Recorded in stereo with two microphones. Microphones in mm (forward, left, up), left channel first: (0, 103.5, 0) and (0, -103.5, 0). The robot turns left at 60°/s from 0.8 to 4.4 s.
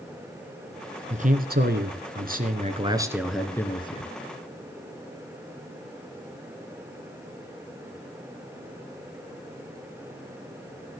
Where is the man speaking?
45° right, 2.5 m; by 4.1 s 135° left, 2.5 m.